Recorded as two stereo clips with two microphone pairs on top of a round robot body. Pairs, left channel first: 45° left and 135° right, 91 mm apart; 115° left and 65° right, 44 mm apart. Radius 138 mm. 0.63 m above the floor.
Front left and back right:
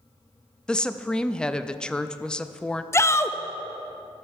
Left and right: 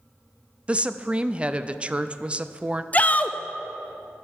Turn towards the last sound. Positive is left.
turn(degrees=85)